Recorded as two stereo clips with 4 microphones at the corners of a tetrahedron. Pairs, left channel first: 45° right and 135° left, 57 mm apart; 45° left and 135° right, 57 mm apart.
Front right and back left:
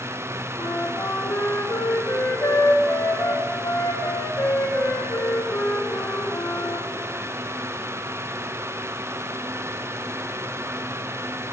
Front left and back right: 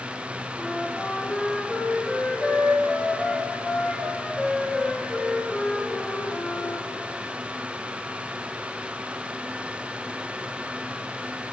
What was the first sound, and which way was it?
A flute, 30° right.